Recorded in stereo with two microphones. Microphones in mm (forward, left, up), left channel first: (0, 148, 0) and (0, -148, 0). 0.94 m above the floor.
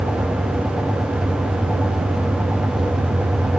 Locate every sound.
Only background noise.